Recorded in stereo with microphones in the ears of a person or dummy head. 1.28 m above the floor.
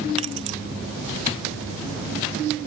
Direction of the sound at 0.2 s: 35° right (ahead or behind).